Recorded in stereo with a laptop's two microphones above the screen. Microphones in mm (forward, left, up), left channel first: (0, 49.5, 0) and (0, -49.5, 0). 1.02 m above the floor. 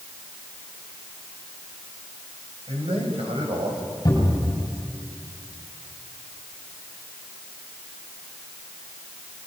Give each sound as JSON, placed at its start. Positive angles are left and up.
{"t": 2.7, "sound": "a man speaking", "side_deg": -75, "distance_m": 5.5}
{"t": 4.0, "sound": "a cupboard door", "side_deg": 45, "distance_m": 7.5}